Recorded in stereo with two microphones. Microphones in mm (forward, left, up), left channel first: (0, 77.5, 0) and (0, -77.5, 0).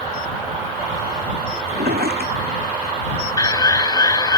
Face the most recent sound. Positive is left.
turn(degrees=25)  # may be behind; listen again after turning